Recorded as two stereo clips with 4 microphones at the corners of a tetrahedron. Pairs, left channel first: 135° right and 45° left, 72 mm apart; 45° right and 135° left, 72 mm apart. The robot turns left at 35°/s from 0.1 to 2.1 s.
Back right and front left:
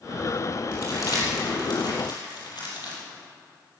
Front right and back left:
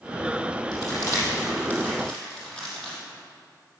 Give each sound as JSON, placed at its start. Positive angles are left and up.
{"t": 0.7, "sound": "crumpling", "azimuth_deg": -80, "distance_m": 5.0}